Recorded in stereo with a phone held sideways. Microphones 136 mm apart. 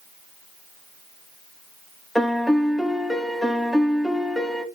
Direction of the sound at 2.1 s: Centre (ahead or behind).